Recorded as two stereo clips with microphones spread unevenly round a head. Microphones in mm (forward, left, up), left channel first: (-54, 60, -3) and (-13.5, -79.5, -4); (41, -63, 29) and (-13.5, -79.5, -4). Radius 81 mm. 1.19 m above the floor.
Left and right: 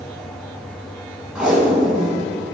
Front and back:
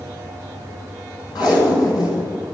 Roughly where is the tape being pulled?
Ahead.